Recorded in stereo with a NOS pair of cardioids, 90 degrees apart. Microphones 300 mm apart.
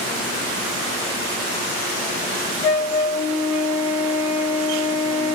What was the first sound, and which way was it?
A flute, 65° left.